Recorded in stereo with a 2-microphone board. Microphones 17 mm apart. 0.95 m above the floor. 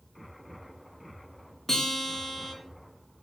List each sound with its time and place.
1.7 s a guitar: 15° left (ahead or behind), 0.6 m